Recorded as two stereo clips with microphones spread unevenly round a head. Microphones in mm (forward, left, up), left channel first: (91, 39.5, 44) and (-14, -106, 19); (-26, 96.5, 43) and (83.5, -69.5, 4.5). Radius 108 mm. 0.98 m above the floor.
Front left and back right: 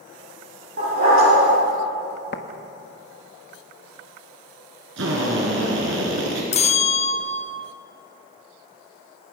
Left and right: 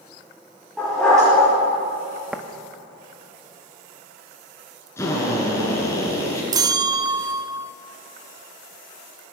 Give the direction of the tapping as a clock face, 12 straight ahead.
11 o'clock.